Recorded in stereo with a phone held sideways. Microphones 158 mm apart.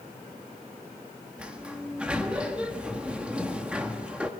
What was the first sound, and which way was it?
A sliding door, 5° right (ahead or behind).